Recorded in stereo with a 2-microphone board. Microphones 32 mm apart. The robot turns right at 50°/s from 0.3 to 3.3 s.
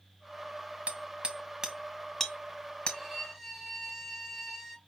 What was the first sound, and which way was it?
Hammering, 40° right (ahead or behind).